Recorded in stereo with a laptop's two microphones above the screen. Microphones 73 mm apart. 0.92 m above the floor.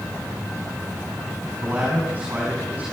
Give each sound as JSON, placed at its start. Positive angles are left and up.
{"t": 1.6, "sound": "a man speaking", "side_deg": -25, "distance_m": 5.5}